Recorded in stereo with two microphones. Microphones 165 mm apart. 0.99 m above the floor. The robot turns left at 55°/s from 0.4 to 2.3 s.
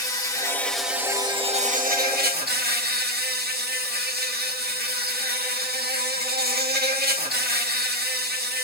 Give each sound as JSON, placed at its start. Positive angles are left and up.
{"t": 0.0, "sound": "an insect", "azimuth_deg": 20, "distance_m": 1.7}